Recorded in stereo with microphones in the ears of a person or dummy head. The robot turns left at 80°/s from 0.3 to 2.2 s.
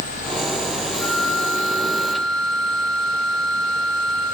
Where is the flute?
Straight behind, 7.5 m; by 4.2 s 85° left, 7.5 m.